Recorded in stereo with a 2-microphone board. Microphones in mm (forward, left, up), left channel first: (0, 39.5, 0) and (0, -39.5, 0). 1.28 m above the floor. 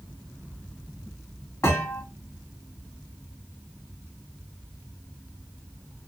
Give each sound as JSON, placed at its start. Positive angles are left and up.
{"t": 1.6, "sound": "a thud", "side_deg": 40, "distance_m": 1.4}